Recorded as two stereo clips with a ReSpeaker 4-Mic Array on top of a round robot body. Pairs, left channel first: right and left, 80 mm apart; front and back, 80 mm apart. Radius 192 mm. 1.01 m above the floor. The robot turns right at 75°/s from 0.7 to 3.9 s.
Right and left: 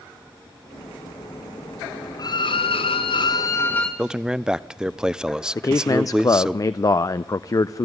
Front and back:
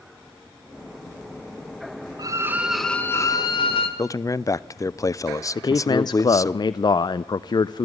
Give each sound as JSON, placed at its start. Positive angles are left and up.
{"t": 2.2, "sound": "a violin", "azimuth_deg": -135, "distance_m": 0.8}
{"t": 4.0, "sound": "a man speaking", "azimuth_deg": 15, "distance_m": 0.9}
{"t": 5.5, "sound": "a man speaking", "azimuth_deg": -40, "distance_m": 0.5}